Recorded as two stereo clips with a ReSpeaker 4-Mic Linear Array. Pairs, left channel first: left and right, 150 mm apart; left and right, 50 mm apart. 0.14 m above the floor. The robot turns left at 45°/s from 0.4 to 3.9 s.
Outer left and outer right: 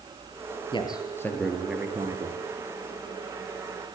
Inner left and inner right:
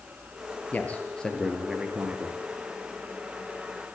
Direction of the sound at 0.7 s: 40° left.